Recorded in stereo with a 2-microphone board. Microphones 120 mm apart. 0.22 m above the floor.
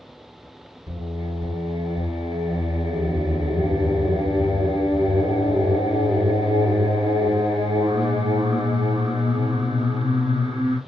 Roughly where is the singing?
Right.